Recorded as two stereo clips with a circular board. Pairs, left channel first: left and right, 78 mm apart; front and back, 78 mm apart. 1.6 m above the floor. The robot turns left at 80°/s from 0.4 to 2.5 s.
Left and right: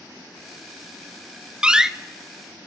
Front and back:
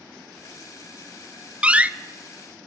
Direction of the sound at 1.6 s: 140° right.